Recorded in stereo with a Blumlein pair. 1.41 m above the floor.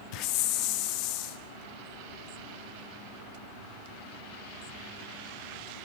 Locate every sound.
0.1 s a hiss: 40° left, 0.8 m